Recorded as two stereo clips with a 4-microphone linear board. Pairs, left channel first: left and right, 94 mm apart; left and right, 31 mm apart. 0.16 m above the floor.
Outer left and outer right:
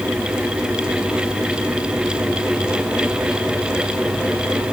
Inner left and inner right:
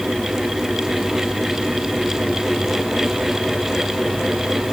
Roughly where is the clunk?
No clunk in this recording.